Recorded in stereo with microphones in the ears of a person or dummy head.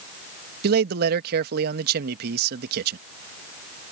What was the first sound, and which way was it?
A man speaking, 55° right (ahead or behind).